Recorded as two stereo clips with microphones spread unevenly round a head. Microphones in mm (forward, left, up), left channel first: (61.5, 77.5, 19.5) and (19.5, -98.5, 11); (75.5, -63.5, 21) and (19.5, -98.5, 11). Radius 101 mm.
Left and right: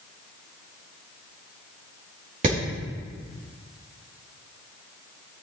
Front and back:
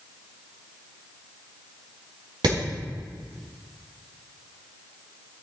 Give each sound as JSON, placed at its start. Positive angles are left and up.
{"t": 2.4, "sound": "hammering", "azimuth_deg": -160, "distance_m": 4.0}